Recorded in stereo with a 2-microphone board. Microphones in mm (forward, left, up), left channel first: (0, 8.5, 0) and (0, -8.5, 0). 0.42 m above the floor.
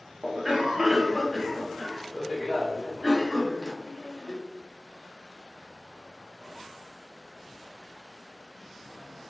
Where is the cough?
25° right (ahead or behind), 0.9 m.